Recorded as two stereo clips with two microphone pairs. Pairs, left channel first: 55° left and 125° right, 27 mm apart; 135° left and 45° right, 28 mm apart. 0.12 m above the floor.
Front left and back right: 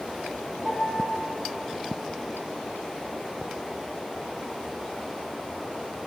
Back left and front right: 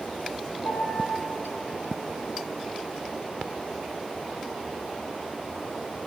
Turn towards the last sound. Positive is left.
turn(degrees=155)